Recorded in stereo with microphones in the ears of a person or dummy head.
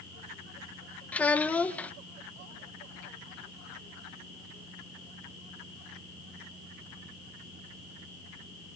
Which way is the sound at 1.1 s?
10° left (ahead or behind).